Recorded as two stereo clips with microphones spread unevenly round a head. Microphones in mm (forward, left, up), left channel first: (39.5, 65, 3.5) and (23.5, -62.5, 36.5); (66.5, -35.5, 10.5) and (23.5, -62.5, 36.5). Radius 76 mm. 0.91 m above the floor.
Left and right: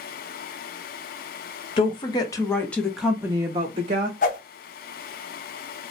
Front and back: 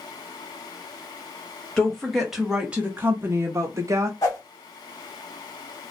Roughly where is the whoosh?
Left.